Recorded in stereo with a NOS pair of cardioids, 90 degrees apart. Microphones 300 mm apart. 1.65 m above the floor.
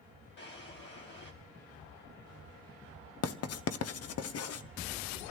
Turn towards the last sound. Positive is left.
turn(degrees=55)